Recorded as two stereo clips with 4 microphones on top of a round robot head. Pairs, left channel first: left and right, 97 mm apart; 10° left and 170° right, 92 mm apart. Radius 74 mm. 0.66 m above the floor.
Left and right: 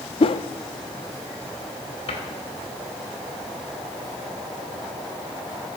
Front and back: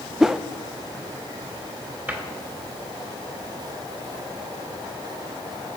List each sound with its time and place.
0.2 s a whoosh: 105° left, 0.5 m
2.1 s a cupboard door: 120° left, 2.5 m